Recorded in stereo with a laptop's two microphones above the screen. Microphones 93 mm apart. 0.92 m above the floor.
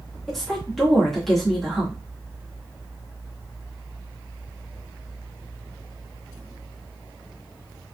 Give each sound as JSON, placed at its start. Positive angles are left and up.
{"t": 0.3, "sound": "a woman speaking", "side_deg": 0, "distance_m": 1.7}